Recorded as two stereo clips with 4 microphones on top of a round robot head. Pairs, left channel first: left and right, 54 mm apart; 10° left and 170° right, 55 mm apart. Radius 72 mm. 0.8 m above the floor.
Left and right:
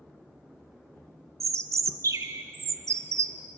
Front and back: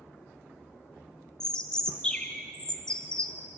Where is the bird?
70° right, 0.9 m.